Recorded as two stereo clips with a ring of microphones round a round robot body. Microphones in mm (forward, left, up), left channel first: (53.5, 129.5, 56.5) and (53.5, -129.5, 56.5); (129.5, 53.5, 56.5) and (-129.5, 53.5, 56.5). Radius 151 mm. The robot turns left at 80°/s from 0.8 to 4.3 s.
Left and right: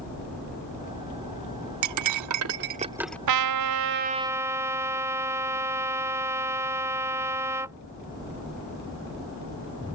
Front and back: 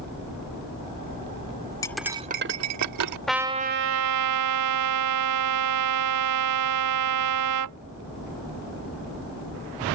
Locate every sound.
1.8 s cutlery clinking: 80° right; by 3.2 s 175° left
3.3 s a trumpet: 90° right; by 7.8 s 170° right